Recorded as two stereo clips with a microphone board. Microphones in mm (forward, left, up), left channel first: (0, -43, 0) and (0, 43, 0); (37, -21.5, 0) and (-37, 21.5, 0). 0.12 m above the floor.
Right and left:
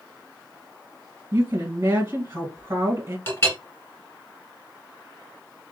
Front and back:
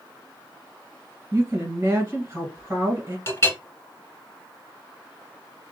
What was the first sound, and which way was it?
A woman speaking, 110° left.